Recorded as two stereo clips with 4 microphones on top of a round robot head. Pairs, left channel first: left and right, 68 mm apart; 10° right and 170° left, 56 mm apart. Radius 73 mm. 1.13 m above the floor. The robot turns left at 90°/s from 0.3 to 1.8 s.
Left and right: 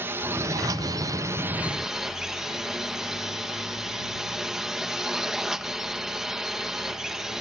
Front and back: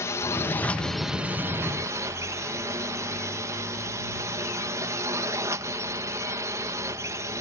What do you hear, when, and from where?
0.0 s a drone: 35° right; by 7.4 s 170° right